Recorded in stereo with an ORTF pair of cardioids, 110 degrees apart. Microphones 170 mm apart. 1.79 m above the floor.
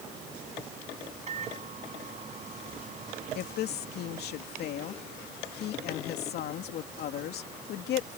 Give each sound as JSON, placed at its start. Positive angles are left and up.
{"t": 1.3, "sound": "a microwave", "azimuth_deg": -40}
{"t": 3.4, "sound": "a woman speaking", "azimuth_deg": 65}